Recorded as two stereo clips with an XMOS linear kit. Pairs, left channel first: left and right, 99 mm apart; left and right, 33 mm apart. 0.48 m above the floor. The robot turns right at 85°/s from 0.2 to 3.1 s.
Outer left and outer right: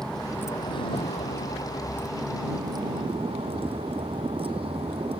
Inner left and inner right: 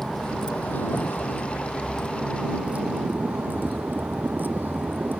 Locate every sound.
0.0 s a vehicle: 5° left; by 5.2 s 110° right